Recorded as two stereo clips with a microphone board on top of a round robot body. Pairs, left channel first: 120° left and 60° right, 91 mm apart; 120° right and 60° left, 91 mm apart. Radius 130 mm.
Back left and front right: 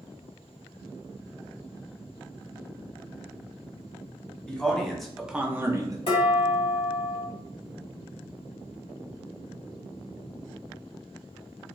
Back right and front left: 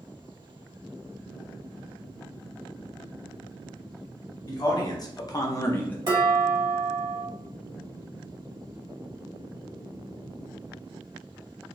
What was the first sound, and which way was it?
A man speaking, 165° right.